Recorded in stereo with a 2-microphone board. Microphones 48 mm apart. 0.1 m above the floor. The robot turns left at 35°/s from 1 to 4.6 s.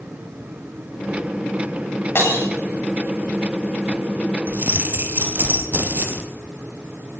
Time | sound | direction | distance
2.1 | breaking glass | 55° left (ahead or behind) | 9.5 m
4.5 | keys jangling | 40° right (ahead or behind) | 2 m